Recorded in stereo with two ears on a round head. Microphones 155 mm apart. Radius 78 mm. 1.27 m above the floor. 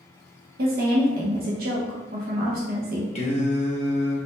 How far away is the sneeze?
No sneeze in this recording.